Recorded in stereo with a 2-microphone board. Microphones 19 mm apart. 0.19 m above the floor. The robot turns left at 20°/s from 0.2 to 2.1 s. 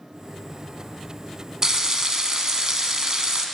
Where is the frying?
30° right (ahead or behind), 0.8 m; by 3.5 s 35° right (ahead or behind), 0.8 m.